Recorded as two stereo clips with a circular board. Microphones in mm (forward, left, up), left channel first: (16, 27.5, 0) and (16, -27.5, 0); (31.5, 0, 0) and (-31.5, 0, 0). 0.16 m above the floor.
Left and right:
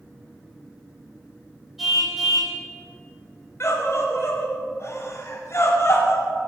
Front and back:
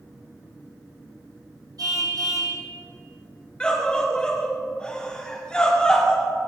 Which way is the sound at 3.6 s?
70° left.